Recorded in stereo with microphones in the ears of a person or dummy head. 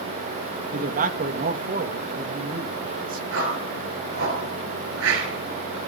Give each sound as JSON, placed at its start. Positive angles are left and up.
{"t": 0.7, "sound": "a man speaking", "side_deg": -40, "distance_m": 0.9}
{"t": 3.3, "sound": "a whoosh", "side_deg": -70, "distance_m": 3.5}